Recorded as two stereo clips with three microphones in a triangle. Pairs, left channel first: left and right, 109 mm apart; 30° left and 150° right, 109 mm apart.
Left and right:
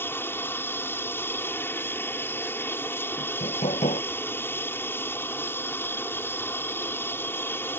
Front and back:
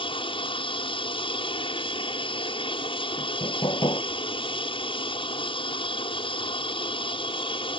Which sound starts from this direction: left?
Hammering, at 3.2 s.